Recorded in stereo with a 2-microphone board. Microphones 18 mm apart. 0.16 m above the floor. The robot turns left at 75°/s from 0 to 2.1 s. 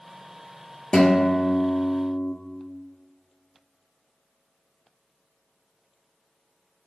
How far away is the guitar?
About 1.4 m.